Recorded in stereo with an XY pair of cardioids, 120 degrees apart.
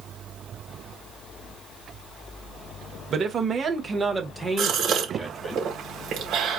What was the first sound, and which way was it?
A man speaking, 50° right.